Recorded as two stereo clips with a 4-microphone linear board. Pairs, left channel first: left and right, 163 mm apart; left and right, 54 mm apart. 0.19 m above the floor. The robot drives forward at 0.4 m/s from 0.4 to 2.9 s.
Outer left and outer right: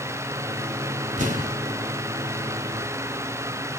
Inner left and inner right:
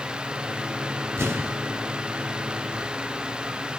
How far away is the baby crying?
No baby crying in this recording.